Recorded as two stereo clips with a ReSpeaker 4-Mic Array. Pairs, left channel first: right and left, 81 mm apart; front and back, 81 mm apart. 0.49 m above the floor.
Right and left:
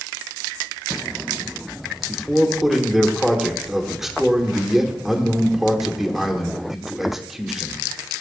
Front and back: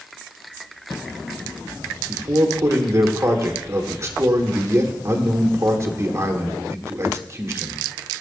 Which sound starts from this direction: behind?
A man speaking, at 2.1 s.